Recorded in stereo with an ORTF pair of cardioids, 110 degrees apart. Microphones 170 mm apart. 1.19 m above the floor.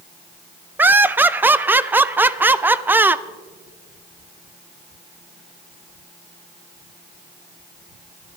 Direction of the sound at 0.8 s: 10° right.